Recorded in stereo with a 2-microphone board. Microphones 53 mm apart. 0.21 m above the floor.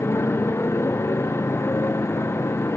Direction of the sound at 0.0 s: 55° left (ahead or behind).